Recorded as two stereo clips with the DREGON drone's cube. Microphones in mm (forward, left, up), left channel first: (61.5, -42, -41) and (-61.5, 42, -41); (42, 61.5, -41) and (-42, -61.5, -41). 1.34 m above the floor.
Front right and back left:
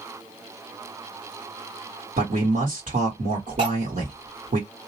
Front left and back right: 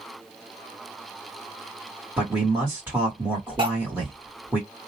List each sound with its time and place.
2.2 s a man speaking: 160° left, 1.3 m
3.6 s cutlery clinking: 175° right, 1.9 m